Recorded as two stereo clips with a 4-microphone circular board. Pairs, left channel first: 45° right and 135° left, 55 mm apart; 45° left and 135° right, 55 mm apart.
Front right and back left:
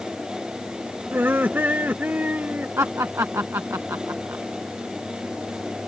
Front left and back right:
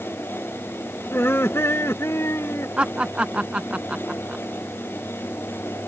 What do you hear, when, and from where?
1.1 s laughter: 85° left; by 2.7 s 75° left
2.8 s laughter: 160° left